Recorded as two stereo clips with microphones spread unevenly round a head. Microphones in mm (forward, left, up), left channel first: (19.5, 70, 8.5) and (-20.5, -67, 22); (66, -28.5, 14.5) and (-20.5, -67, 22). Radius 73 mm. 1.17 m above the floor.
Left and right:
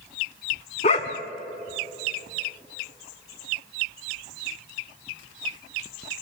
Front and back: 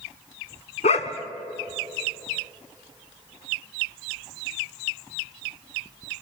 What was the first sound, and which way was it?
A dog barking, 25° left.